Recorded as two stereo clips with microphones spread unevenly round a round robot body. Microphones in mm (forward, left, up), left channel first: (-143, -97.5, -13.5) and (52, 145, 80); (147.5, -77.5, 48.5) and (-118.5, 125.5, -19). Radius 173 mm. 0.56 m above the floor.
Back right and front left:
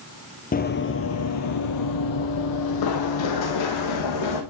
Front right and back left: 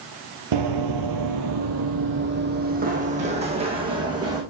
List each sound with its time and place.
0.5 s running footsteps: 160° left, 1.0 m; by 4.4 s 135° right, 2.5 m